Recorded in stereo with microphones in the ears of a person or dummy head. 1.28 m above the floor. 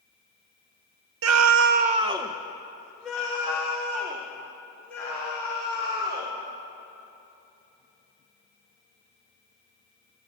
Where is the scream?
80° right, 0.6 m; by 6.3 s 15° left (ahead or behind), 5 m.